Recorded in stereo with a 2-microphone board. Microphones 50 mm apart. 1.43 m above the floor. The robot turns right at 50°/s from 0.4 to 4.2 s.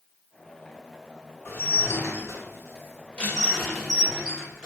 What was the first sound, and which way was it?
Dishes clattering, 65° left.